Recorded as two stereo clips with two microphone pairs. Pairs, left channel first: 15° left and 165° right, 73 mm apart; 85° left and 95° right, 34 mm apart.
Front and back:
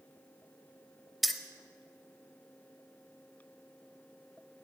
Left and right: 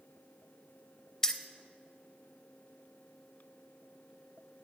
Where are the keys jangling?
95° left, 0.6 m.